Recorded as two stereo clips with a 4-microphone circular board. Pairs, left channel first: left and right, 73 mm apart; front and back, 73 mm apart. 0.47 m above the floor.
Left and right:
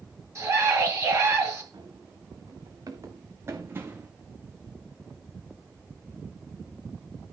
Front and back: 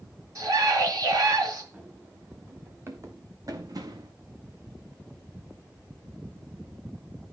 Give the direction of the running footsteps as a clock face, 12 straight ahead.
4 o'clock.